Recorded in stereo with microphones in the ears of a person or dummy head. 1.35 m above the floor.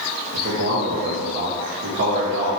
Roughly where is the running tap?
I don't hear a running tap.